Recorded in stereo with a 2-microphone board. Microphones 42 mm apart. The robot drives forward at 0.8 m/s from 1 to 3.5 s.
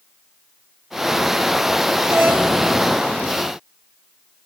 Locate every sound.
2.1 s a doorbell: 65° right (ahead or behind), 5 m